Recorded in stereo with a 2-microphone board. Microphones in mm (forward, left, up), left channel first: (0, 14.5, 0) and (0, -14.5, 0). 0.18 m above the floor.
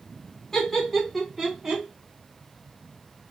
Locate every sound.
0.5 s laughter: 15° left (ahead or behind), 1.5 m; by 1.8 s 20° right (ahead or behind), 1.8 m